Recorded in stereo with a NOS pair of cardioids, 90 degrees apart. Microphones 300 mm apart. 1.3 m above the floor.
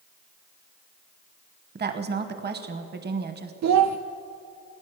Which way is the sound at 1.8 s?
35° right.